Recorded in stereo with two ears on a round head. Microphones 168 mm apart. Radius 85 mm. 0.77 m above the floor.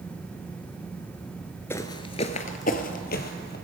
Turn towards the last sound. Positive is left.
turn(degrees=60)  # may be behind; listen again after turning